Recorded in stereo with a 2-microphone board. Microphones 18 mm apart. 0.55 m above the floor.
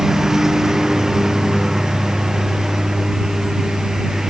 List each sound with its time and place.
0.0 s a lawn mower: 35° right (ahead or behind)